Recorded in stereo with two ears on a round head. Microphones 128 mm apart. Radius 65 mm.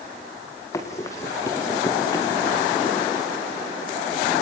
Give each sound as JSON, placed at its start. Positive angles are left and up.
{"t": 0.7, "sound": "running footsteps", "side_deg": 20, "distance_m": 3.5}